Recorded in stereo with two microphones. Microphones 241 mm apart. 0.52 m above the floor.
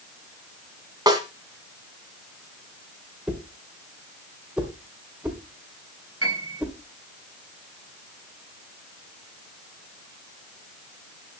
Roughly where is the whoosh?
Centre.